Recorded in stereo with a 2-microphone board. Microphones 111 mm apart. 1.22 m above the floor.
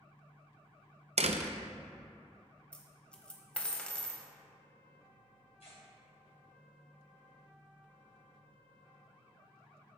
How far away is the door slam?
About 0.5 m.